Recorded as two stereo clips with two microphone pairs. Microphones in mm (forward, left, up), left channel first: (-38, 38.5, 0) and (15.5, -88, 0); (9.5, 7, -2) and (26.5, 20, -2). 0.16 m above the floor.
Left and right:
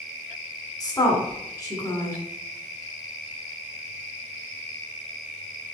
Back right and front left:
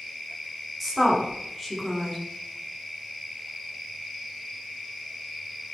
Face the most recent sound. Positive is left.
turn(degrees=115)